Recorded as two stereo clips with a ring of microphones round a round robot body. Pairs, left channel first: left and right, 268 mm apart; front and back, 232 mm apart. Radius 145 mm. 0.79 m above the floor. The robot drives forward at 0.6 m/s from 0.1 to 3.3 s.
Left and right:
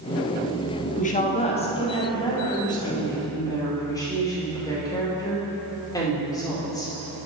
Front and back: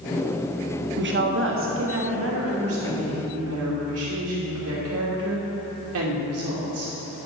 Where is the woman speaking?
145° left, 1.2 m; by 6.9 s 165° left, 2.5 m.